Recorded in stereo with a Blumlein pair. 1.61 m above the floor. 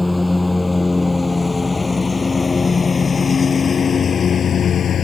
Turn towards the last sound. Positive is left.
turn(degrees=25)